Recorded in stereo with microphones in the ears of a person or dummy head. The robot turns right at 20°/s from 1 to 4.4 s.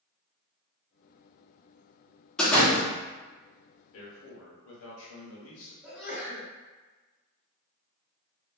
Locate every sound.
2.4 s a door slam: 5° left (ahead or behind), 0.7 m; by 2.9 s 15° left (ahead or behind), 0.7 m
3.9 s a man speaking: 75° left (ahead or behind), 1.1 m; by 5.7 s 85° left, 1.1 m
5.8 s a sneeze: centre (ahead or behind), 1.7 m